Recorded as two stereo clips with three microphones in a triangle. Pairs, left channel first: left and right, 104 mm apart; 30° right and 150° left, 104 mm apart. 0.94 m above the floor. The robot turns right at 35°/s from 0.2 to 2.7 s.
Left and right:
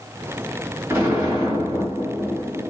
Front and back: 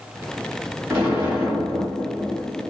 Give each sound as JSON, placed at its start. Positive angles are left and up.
{"t": 0.9, "sound": "an explosion", "azimuth_deg": -150, "distance_m": 1.5}